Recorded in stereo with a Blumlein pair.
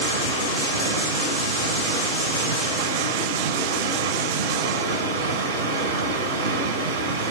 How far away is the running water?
About 4 m.